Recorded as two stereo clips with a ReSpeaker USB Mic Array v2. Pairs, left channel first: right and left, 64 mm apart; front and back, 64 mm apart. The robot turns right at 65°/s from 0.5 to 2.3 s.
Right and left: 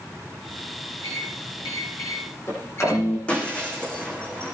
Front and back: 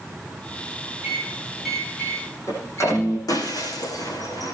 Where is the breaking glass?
20° right, 7 m.